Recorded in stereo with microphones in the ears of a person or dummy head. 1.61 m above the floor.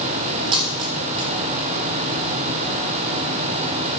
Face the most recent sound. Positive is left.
turn(degrees=-25)  # may be behind; listen again after turning